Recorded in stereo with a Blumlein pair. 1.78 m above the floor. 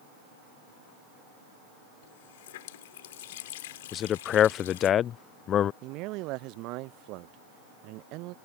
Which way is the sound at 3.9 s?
30° left.